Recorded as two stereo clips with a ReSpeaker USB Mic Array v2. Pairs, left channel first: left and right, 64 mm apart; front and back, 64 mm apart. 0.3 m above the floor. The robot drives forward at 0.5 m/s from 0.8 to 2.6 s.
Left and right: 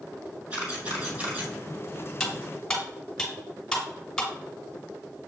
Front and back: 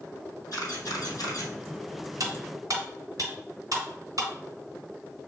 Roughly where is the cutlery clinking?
Behind.